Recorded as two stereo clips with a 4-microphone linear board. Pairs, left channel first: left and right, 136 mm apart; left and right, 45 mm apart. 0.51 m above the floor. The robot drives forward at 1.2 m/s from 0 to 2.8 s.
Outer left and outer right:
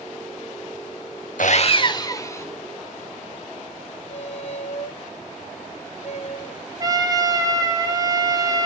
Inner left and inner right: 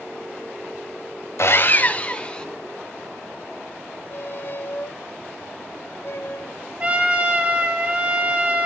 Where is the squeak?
50° left (ahead or behind), 0.6 m.